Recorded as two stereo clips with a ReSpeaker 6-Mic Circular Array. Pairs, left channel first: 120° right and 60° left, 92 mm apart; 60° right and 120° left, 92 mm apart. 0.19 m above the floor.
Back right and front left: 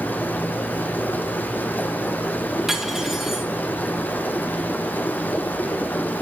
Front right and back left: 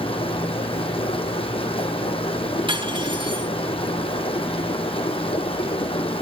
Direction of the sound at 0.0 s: 50° right.